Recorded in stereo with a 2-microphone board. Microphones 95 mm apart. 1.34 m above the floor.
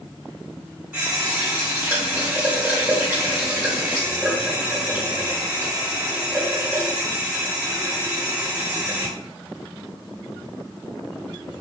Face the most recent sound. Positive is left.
turn(degrees=-15)  # may be behind; listen again after turning